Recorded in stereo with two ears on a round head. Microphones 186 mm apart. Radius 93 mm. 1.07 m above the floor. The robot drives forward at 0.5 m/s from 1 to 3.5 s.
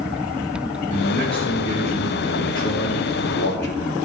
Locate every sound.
0.9 s a man speaking: 25° left (ahead or behind), 1.5 m; by 4.0 s 55° left (ahead or behind), 0.8 m